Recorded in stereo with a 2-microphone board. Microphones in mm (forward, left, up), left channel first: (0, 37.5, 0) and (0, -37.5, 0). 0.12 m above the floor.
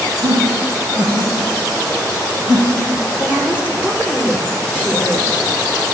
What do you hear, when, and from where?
0.2 s laughter: 75° right (ahead or behind), 5 m; by 3.0 s 60° right (ahead or behind), 6 m
3.2 s a woman speaking: 15° right (ahead or behind), 3 m